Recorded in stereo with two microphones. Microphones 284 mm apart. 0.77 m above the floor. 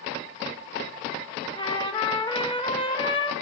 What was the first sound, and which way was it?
A trumpet, 15° left (ahead or behind).